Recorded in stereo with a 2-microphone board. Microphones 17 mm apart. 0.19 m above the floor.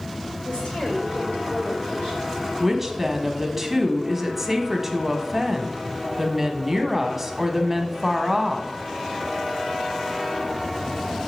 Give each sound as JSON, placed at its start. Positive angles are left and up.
{"t": 0.4, "sound": "a woman speaking", "side_deg": 70, "distance_m": 3.5}
{"t": 2.6, "sound": "a woman speaking", "side_deg": -15, "distance_m": 1.0}